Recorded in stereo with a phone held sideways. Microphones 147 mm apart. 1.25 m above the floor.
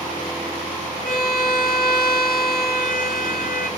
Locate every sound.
1.1 s a violin: 80° left, 3.5 m